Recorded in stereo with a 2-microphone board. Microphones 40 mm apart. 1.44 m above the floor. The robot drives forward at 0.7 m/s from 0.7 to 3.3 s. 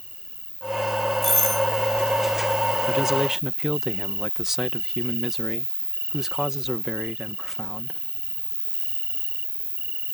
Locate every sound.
0.0 s an insect: 25° right (ahead or behind); by 10.2 s 55° right (ahead or behind)
1.2 s a doorbell: 5° left (ahead or behind)
2.9 s a man speaking: 15° right (ahead or behind); by 8.0 s 10° right (ahead or behind)